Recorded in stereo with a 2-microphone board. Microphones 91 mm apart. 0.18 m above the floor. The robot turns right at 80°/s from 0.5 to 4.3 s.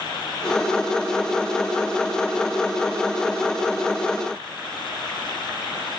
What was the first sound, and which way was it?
Only background noise.